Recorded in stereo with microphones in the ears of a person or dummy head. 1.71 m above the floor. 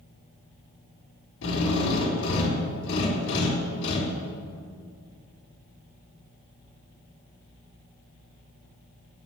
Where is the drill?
65° left (ahead or behind), 3.5 m.